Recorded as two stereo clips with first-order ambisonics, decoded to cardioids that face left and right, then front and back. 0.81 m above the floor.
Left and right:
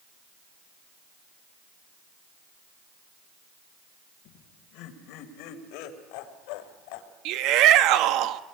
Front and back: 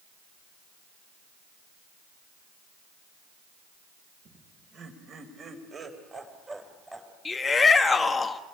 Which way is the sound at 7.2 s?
75° right.